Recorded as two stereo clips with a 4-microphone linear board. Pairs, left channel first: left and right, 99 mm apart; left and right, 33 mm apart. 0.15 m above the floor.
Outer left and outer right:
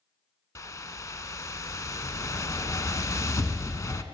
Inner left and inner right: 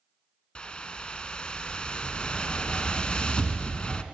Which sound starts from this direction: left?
A whoosh, at 0.6 s.